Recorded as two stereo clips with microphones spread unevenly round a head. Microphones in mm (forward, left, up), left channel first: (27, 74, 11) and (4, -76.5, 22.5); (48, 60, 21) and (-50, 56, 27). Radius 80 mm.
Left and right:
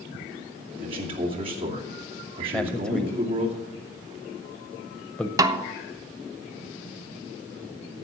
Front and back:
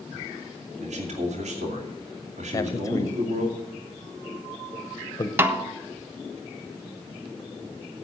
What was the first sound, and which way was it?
A man speaking, 160° right.